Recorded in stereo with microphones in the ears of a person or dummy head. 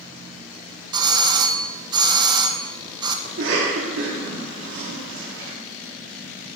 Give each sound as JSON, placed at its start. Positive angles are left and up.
{"t": 0.9, "sound": "a doorbell", "side_deg": -20, "distance_m": 1.1}
{"t": 3.2, "sound": "a cough", "side_deg": -70, "distance_m": 2.5}